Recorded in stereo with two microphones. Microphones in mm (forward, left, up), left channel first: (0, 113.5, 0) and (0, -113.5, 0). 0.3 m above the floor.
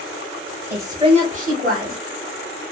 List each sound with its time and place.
0.7 s a woman speaking: 10° right (ahead or behind), 1.0 m; by 2.0 s 45° right (ahead or behind), 1.4 m